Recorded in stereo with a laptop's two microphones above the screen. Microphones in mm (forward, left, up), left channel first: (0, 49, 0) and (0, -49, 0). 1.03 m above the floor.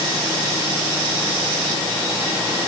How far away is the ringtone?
No ringtone in this recording.